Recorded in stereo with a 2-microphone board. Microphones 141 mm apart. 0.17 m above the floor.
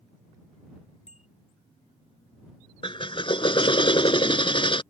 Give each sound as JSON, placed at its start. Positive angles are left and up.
{"t": 1.1, "sound": "a bicycle bell", "side_deg": 55}
{"t": 2.8, "sound": "a drill", "side_deg": 40}